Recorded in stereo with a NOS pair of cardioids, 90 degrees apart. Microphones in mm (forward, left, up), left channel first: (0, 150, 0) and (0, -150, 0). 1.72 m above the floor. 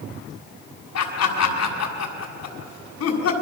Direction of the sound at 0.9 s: 55° left.